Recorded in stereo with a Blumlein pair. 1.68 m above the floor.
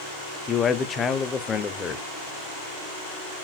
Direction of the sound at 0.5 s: 20° left.